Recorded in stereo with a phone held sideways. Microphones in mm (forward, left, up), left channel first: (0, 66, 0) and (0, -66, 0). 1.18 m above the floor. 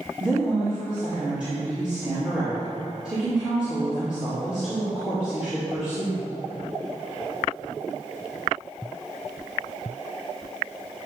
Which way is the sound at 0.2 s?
5° right (ahead or behind).